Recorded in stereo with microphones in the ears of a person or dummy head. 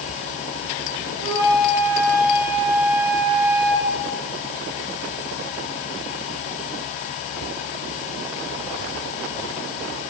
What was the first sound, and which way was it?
A flute, 60° right (ahead or behind).